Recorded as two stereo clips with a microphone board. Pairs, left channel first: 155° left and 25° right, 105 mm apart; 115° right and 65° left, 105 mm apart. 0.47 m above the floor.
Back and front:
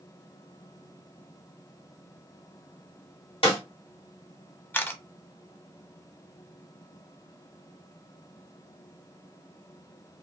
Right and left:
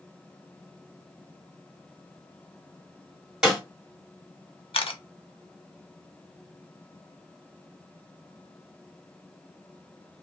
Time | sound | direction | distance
3.4 | a snare drum | 150° left | 1.9 m
4.7 | a camera shutter | 135° right | 0.5 m